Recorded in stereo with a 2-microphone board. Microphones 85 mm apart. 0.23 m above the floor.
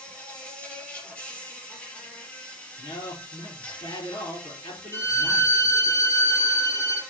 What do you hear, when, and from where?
0.0 s an insect: 15° left (ahead or behind), 4.5 m
2.8 s a man speaking: 60° left (ahead or behind), 4.5 m
4.9 s a violin: 30° left (ahead or behind), 7 m